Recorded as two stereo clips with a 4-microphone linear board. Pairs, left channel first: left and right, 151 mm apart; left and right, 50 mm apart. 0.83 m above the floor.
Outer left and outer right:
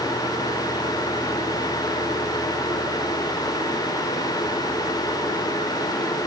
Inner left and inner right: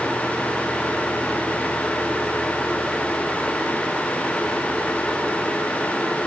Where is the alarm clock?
I don't hear an alarm clock.